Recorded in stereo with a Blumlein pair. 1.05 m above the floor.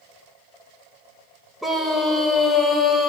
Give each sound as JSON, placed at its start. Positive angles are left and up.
{"t": 1.6, "sound": "a scream", "azimuth_deg": 0, "distance_m": 5.0}